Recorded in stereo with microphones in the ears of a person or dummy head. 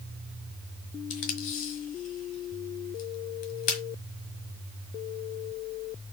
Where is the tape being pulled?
45° left (ahead or behind), 1.6 m.